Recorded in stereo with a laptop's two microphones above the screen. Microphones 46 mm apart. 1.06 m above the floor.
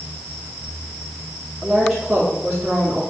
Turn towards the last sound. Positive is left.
turn(degrees=0)  # may be behind; listen again after turning